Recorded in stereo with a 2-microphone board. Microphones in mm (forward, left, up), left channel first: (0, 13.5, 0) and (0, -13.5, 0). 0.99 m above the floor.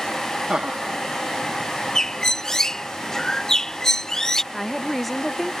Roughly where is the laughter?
Right.